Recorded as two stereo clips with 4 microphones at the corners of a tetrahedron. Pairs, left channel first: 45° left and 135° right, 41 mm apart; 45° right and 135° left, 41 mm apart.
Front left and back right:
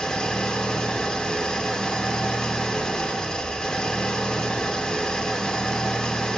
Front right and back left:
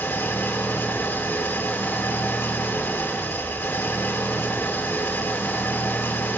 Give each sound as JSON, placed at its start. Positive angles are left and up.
{"t": 0.0, "sound": "an engine running", "azimuth_deg": -25, "distance_m": 0.8}